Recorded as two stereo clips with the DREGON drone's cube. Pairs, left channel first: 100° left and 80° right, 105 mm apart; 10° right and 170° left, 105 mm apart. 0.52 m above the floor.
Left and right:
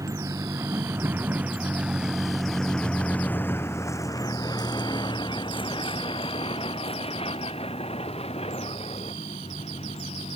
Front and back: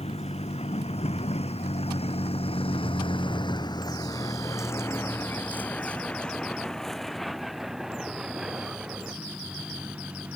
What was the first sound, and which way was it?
A vehicle, 20° right.